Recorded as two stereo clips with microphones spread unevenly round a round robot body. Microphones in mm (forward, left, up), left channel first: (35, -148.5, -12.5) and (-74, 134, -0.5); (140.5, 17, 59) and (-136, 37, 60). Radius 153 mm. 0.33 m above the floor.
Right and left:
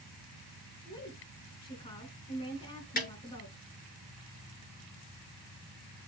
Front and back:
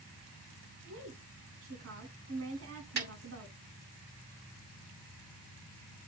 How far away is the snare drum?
About 6 m.